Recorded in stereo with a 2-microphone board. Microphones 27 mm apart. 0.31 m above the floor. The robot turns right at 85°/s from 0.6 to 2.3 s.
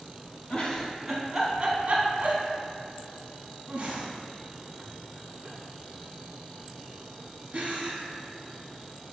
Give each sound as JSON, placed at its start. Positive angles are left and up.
{"t": 0.5, "sound": "a giggle", "side_deg": 40, "distance_m": 1.2}